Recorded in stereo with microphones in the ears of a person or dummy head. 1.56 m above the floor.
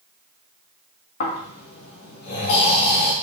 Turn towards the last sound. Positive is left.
turn(degrees=55)  # may be behind; listen again after turning